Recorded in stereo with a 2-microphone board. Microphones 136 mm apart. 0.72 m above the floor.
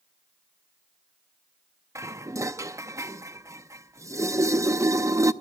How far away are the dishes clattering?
About 0.5 m.